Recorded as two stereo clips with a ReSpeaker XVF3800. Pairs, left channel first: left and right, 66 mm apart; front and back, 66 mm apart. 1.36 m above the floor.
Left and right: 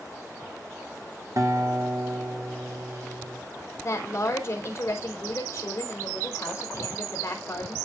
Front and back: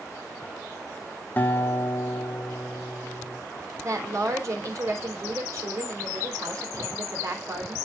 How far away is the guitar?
About 1.6 m.